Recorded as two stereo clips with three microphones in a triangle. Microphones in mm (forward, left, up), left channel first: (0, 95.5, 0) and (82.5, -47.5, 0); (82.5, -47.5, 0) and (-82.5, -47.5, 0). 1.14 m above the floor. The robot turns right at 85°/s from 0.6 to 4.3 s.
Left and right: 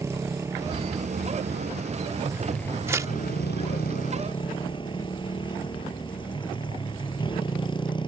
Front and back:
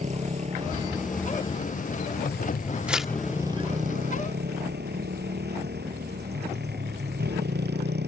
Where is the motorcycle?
135° right; by 8.1 s straight behind.